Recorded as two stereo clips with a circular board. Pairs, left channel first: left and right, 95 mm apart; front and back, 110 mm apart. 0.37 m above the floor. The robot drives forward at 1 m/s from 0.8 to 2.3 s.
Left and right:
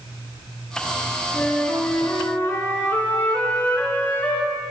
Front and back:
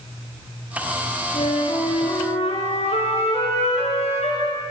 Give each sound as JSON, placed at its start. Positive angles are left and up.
{"t": 1.3, "sound": "a flute", "azimuth_deg": 15, "distance_m": 5.0}